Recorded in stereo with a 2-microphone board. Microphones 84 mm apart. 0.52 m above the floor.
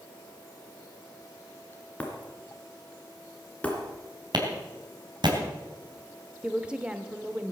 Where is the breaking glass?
15° left (ahead or behind), 3 m.